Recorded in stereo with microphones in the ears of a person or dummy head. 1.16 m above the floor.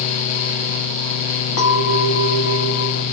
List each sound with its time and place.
1.6 s a clink: 60° left (ahead or behind), 1.1 m